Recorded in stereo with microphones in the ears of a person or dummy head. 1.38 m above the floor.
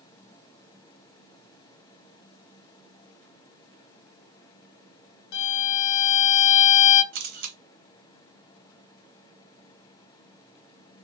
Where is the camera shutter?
55° right (ahead or behind), 0.6 m.